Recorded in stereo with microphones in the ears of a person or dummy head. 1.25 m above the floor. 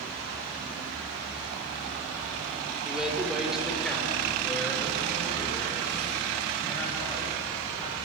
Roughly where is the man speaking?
Centre.